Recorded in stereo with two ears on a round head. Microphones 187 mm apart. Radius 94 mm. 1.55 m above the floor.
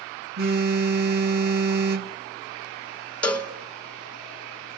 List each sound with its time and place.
0.4 s a phone buzzing: 45° right (ahead or behind), 1.1 m
3.2 s a cowbell: 5° left (ahead or behind), 0.9 m